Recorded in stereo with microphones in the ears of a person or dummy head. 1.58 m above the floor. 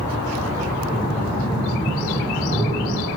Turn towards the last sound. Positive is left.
turn(degrees=40)  # may be behind; listen again after turning